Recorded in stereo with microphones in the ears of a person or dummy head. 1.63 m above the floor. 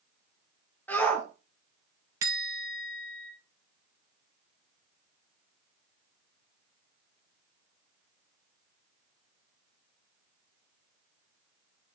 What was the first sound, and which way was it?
A shout, 10° left (ahead or behind).